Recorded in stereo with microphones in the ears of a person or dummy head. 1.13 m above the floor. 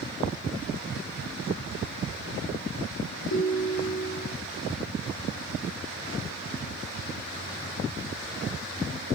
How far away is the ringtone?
About 1.9 m.